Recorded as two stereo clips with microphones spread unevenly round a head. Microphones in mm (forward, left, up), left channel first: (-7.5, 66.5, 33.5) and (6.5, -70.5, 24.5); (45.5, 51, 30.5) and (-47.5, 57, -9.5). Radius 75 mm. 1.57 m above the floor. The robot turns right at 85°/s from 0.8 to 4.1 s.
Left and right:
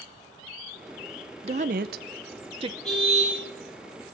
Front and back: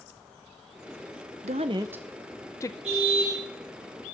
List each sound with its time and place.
1.4 s a woman speaking: 135° right, 0.7 m; by 2.7 s 25° right, 0.7 m
2.8 s a car horn: straight behind, 6.5 m; by 3.4 s 135° right, 6.5 m